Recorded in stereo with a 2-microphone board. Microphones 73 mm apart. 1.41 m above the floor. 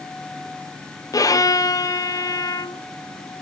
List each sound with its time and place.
1.1 s a violin: 55° left (ahead or behind), 0.6 m